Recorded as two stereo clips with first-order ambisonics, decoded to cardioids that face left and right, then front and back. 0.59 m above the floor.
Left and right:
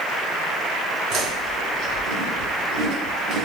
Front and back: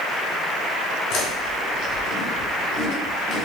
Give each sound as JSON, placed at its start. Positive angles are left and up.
{"t": 1.1, "sound": "chewing", "azimuth_deg": -40, "distance_m": 3.5}